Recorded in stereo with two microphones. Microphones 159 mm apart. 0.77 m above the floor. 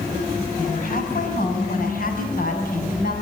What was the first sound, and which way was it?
A woman speaking, 60° left (ahead or behind).